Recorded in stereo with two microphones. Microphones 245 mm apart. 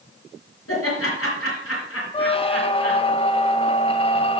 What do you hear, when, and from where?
0.7 s laughter: 65° left (ahead or behind), 3.5 m
2.1 s a squeak: 25° left (ahead or behind), 0.6 m